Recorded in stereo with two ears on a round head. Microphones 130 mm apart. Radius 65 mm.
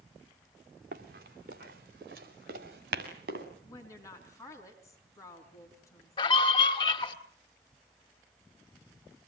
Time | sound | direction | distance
0.9 | running footsteps | 65° right (ahead or behind) | 3.5 m
3.6 | a woman speaking | 20° left (ahead or behind) | 4 m
6.2 | a scream | 35° left (ahead or behind) | 1.8 m